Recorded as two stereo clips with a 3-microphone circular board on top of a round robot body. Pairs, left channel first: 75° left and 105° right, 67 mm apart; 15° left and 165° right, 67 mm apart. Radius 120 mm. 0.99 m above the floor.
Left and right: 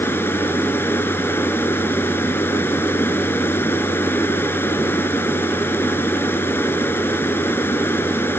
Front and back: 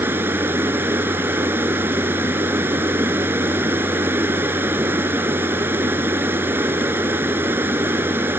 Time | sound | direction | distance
0.0 | running water | 135° left | ?